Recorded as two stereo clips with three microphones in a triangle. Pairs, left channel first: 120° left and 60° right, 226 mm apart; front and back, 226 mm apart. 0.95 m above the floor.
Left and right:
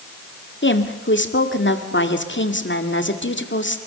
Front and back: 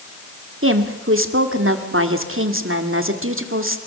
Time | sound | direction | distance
0.6 | a woman speaking | 155° left | 2 m